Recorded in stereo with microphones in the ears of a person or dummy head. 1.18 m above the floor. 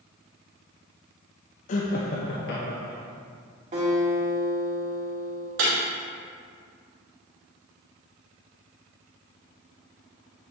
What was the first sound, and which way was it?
Laughter, 45° left (ahead or behind).